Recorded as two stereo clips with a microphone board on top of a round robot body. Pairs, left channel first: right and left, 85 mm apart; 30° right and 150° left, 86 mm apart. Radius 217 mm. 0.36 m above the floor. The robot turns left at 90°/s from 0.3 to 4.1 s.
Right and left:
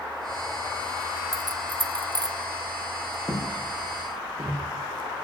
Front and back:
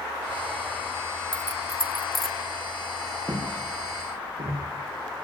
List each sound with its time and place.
1.3 s keys jangling: 140° left, 1.0 m; by 2.4 s 45° left, 1.0 m
3.3 s footsteps: 155° right, 9.5 m; by 4.6 s 135° left, 10 m